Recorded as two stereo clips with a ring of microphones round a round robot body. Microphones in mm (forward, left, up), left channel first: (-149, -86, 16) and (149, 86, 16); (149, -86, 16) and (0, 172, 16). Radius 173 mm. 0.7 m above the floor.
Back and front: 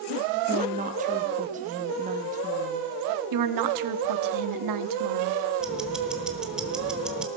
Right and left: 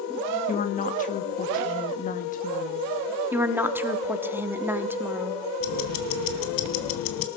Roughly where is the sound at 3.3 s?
Ahead left.